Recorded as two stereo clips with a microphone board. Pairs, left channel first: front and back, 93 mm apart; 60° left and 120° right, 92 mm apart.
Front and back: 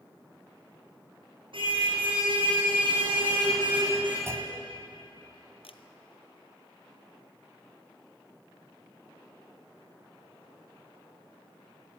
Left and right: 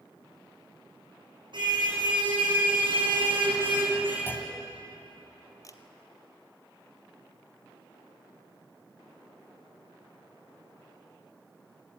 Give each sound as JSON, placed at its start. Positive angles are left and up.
{"t": 1.5, "sound": "a car horn", "azimuth_deg": -155, "distance_m": 5.5}
{"t": 4.3, "sound": "a clunk", "azimuth_deg": 125, "distance_m": 2.5}
{"t": 5.6, "sound": "a camera shutter", "azimuth_deg": 5, "distance_m": 1.2}